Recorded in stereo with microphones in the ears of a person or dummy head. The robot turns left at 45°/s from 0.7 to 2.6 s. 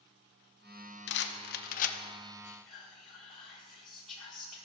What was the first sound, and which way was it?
A rattle, 55° left (ahead or behind).